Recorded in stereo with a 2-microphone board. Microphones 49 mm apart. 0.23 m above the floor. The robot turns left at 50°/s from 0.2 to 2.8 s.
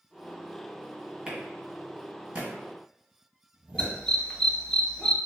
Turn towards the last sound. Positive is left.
turn(degrees=15)  # may be behind; listen again after turning